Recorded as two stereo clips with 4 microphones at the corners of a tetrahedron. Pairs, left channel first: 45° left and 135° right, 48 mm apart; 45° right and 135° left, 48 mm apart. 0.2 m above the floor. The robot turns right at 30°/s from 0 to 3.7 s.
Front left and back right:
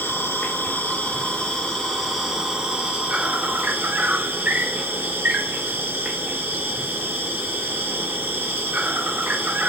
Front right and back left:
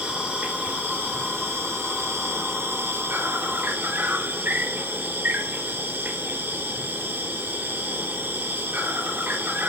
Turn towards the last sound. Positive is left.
turn(degrees=170)